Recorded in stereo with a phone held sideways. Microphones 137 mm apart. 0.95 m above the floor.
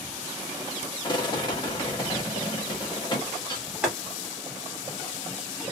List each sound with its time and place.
1.0 s a rattle: 35° left (ahead or behind), 1.5 m
3.8 s boiling: 5° right (ahead or behind), 1.7 m